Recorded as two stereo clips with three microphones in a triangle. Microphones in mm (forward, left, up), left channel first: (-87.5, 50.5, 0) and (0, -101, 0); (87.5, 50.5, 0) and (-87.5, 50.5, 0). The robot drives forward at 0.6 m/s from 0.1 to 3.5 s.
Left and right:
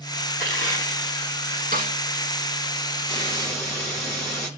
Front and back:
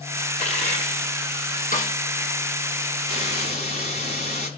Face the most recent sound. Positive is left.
turn(degrees=50)